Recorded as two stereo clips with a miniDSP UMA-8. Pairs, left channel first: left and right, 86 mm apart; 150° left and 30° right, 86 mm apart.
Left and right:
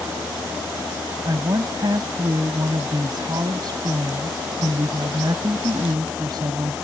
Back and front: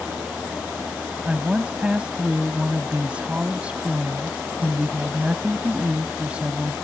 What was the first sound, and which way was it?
A woman speaking, 105° right.